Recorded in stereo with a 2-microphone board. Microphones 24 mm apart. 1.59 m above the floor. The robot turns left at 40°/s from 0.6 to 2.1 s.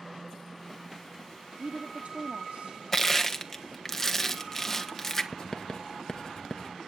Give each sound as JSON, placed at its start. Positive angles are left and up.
{"t": 1.6, "sound": "a woman speaking", "side_deg": -60, "distance_m": 1.1}
{"t": 2.9, "sound": "crushing", "side_deg": 10, "distance_m": 1.5}
{"t": 5.3, "sound": "writing", "side_deg": 25, "distance_m": 1.3}